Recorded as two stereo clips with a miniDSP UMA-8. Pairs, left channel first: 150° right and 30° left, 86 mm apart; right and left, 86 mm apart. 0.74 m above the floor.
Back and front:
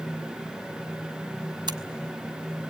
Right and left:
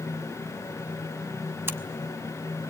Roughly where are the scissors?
Ahead left.